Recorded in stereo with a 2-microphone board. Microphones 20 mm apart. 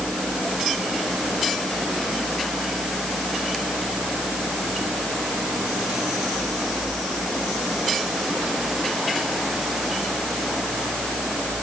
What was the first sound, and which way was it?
Only background noise.